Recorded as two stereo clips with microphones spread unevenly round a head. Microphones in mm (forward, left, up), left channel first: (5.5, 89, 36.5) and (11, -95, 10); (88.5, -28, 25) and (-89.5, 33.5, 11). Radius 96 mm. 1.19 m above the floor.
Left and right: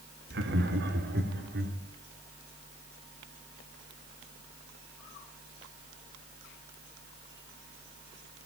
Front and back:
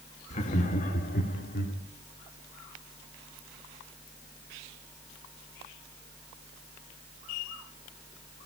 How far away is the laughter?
About 2.5 m.